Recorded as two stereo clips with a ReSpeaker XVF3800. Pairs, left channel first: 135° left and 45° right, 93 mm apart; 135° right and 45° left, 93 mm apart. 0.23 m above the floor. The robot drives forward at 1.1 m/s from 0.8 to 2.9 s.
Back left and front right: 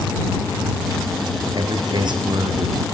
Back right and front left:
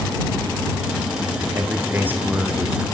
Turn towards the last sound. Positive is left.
turn(degrees=-35)